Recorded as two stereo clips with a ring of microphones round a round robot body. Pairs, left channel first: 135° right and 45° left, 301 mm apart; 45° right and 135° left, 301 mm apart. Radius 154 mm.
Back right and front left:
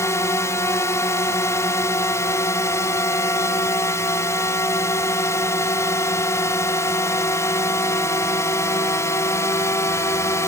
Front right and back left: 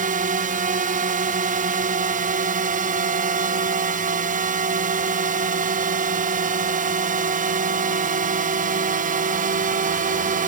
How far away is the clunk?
No clunk in this recording.